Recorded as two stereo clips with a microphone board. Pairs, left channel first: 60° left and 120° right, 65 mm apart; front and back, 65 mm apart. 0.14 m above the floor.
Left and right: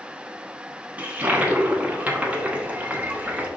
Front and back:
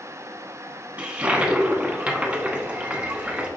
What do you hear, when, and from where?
1.0 s a toilet flushing: 145° right, 0.7 m